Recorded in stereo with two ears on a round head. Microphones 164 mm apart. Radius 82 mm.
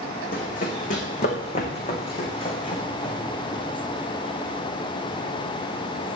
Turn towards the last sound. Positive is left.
turn(degrees=20)  # may be behind; listen again after turning